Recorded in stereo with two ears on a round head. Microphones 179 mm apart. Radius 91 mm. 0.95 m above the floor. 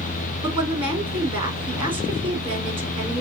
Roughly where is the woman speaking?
Right.